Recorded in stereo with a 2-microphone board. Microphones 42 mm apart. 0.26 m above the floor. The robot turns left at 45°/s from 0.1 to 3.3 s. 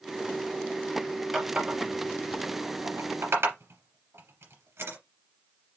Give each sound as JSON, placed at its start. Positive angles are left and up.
{"t": 1.3, "sound": "a running tap", "side_deg": -10, "distance_m": 3.0}